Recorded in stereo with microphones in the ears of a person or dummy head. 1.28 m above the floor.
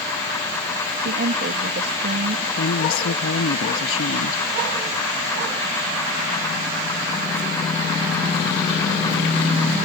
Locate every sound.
1.0 s a woman speaking: 50° right (ahead or behind)
2.6 s a woman speaking: 85° left